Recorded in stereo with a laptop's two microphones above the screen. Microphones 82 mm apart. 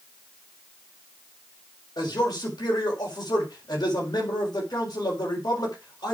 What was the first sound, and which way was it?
A man speaking, 55° left (ahead or behind).